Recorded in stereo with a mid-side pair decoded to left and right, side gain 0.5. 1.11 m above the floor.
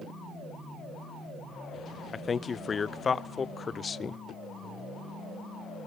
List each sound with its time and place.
2.1 s a man speaking: 35° left, 0.6 m